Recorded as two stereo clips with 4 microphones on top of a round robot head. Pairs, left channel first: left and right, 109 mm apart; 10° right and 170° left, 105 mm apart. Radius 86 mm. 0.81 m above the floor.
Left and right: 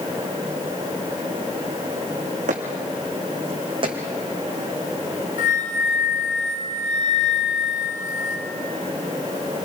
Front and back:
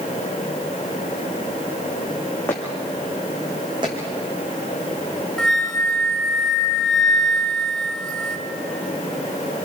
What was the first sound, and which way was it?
Footsteps, 85° right.